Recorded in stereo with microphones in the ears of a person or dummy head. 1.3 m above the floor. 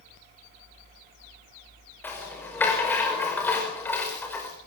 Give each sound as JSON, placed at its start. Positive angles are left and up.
{"t": 2.0, "sound": "a rattle", "side_deg": 10, "distance_m": 5.5}